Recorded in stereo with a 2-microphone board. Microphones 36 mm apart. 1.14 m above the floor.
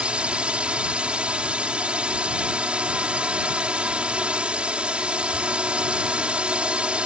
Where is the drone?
30° right (ahead or behind).